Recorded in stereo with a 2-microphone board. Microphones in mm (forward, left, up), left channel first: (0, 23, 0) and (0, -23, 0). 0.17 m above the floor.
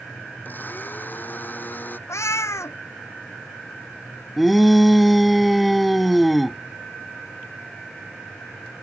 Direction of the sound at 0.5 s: 40° left (ahead or behind).